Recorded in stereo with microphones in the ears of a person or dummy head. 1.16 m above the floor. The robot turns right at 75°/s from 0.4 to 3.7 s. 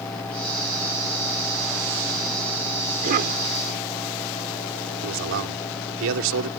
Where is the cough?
140° right; by 3.4 s 110° right.